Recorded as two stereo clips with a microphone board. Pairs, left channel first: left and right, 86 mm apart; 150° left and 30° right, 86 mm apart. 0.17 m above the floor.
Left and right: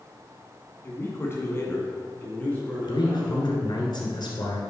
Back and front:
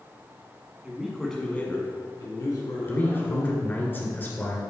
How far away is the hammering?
No hammering in this recording.